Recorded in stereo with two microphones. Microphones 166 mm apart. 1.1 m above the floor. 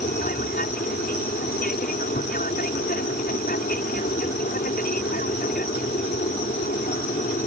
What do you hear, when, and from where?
0.0 s an aircraft: 60° left (ahead or behind)